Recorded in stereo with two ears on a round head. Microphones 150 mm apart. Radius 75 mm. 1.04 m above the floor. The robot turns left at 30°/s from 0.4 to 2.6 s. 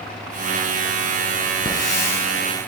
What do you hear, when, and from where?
1.6 s a hiss: 30° left (ahead or behind), 2.5 m; by 2.2 s 10° left (ahead or behind), 2.5 m